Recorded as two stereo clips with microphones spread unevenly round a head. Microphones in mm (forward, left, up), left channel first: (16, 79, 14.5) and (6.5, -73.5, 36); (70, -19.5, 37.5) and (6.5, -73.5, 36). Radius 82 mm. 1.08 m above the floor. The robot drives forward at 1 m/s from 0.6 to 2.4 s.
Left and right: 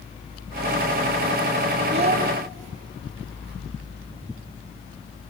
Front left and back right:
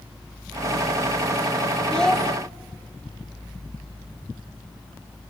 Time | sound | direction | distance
1.9 | a child speaking | 40° right | 1.5 m